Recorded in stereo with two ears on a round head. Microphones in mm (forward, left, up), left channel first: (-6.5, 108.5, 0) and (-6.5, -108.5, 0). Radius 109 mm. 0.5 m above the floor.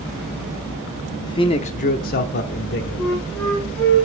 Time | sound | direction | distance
1.2 | a man speaking | 15° left (ahead or behind) | 0.7 m
3.0 | a flute | 5° left (ahead or behind) | 3 m